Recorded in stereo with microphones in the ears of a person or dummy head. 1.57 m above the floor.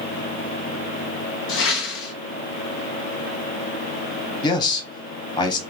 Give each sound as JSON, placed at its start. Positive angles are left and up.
{"t": 1.5, "sound": "a whoosh", "side_deg": 65, "distance_m": 0.6}
{"t": 4.4, "sound": "a man speaking", "side_deg": 25, "distance_m": 0.8}